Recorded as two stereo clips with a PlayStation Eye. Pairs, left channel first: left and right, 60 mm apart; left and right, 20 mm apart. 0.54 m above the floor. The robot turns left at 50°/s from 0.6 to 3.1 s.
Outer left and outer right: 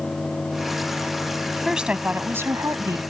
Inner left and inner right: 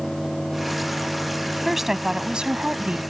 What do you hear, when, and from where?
1.6 s a woman speaking: 5° right; by 3.0 s 75° right